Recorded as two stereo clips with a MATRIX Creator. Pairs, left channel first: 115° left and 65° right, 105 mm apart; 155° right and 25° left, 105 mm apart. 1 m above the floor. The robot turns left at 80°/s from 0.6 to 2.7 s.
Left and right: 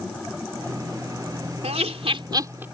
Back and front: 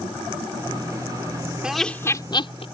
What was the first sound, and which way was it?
Laughter, 60° right.